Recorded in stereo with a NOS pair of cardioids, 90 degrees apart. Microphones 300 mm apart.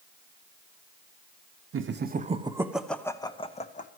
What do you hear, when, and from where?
1.7 s laughter: 45° right, 0.9 m; by 3.9 s 25° left, 1.4 m